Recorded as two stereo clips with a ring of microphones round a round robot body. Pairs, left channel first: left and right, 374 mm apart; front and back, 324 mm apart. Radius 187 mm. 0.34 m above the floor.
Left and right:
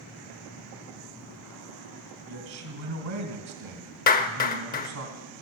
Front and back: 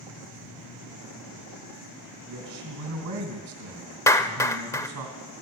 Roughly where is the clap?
Left.